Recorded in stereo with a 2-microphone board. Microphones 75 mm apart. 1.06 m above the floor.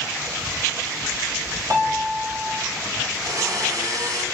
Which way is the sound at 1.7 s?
40° right (ahead or behind).